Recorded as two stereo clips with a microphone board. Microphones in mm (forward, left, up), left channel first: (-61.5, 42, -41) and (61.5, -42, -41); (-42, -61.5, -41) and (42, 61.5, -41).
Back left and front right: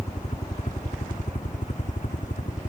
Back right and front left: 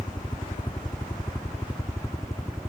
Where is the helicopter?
Straight behind; by 2.7 s 165° left.